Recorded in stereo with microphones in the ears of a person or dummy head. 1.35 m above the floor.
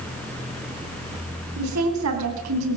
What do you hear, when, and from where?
1.6 s a woman speaking: 85° right, 9 m; by 2.8 s 90° right, 8.5 m